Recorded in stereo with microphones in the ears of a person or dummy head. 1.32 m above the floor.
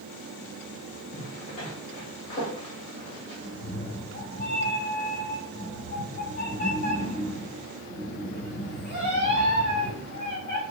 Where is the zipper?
35° left (ahead or behind), 1.6 m.